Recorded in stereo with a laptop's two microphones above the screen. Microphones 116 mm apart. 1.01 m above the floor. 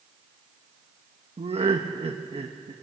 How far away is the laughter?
About 1.2 m.